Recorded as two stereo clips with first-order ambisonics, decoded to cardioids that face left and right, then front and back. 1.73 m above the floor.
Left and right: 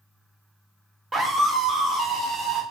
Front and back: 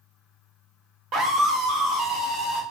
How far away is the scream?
About 0.6 m.